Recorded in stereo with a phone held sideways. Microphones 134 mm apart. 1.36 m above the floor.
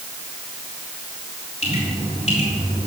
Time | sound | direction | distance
1.6 | dripping | 55° left (ahead or behind) | 4 m